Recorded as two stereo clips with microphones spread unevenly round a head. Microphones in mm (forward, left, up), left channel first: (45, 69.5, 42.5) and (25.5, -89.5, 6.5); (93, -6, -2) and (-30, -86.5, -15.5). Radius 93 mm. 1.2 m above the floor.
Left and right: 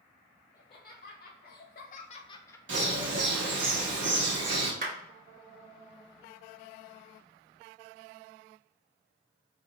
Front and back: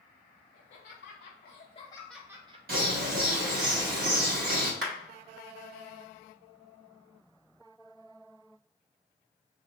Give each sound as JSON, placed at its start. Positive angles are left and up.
{"t": 0.5, "sound": "laughter", "azimuth_deg": 40, "distance_m": 1.1}
{"t": 2.7, "sound": "a bird", "azimuth_deg": -130, "distance_m": 1.4}
{"t": 4.8, "sound": "a clap", "azimuth_deg": -145, "distance_m": 2.5}